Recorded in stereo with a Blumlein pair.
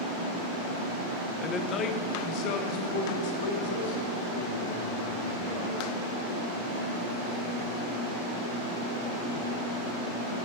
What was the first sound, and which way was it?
A man speaking, 15° left.